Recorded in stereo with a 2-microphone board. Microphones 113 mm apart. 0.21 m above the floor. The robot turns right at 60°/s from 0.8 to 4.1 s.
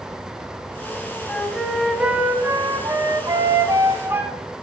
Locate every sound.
1.3 s a flute: 155° left, 1.2 m; by 4.3 s 35° right, 1.2 m